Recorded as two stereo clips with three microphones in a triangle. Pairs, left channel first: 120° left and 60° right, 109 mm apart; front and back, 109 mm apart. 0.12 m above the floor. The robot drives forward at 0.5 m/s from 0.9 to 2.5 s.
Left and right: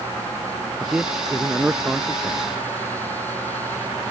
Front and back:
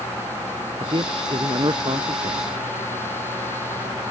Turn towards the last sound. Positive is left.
turn(degrees=-140)